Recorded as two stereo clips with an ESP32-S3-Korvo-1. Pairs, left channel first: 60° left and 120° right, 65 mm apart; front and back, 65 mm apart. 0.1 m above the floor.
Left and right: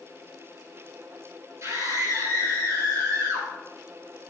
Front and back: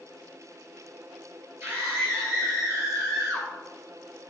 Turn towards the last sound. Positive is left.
turn(degrees=-140)